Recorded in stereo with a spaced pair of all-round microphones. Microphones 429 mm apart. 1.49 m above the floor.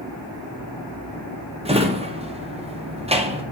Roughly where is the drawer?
Centre.